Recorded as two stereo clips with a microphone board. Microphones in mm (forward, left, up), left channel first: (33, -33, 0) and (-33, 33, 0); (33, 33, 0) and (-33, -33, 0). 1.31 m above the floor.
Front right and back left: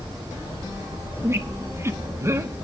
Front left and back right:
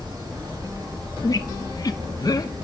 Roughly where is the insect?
Behind.